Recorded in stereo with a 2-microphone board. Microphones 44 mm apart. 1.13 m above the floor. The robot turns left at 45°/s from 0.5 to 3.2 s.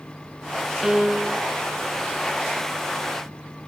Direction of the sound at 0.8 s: 10° right (ahead or behind).